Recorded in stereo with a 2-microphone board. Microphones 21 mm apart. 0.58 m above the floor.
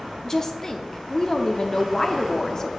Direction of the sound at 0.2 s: 25° left (ahead or behind).